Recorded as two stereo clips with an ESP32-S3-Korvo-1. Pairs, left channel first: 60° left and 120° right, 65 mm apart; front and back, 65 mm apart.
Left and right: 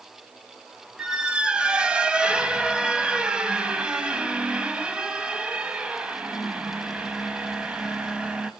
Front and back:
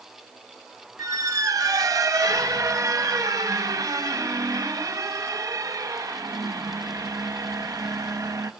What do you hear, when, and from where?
1.0 s a squeak: 165° left, 0.9 m